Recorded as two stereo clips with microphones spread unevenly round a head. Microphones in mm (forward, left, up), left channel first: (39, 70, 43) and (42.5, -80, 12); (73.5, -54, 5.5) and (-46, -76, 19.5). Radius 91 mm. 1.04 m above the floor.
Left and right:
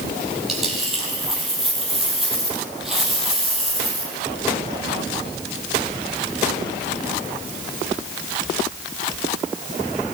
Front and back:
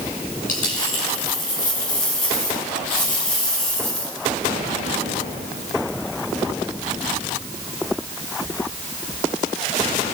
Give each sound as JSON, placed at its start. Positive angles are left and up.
{"t": 0.5, "sound": "a dropped coin", "azimuth_deg": 0, "distance_m": 9.5}